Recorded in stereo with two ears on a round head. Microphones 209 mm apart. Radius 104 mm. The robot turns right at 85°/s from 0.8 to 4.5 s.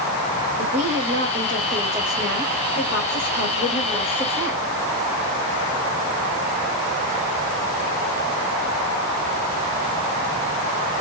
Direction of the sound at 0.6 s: 115° right.